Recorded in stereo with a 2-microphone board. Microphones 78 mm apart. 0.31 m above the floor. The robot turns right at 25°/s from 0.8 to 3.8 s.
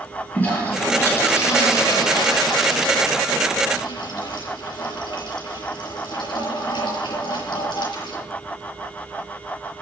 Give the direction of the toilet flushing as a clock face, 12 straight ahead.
11 o'clock.